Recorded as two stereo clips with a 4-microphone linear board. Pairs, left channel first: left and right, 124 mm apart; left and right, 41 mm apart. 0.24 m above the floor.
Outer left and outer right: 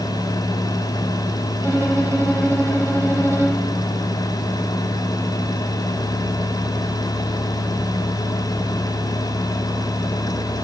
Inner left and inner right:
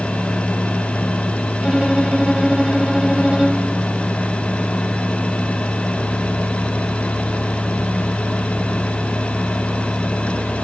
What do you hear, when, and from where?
1.6 s a violin: 20° right (ahead or behind), 4.5 m